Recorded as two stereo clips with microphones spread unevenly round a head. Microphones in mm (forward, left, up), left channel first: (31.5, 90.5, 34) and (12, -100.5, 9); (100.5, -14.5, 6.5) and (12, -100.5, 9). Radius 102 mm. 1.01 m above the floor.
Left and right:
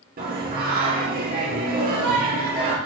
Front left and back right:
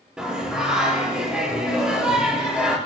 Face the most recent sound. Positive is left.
turn(degrees=-55)